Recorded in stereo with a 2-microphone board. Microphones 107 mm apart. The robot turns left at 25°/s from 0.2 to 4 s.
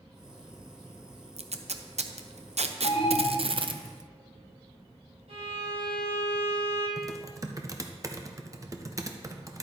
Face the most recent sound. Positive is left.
turn(degrees=-30)  # may be behind; listen again after turning